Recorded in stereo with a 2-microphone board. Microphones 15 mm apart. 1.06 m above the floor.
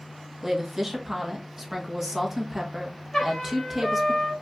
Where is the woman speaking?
20° right (ahead or behind), 1.2 m.